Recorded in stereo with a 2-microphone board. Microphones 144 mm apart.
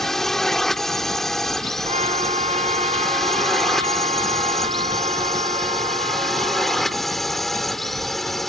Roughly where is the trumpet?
Right.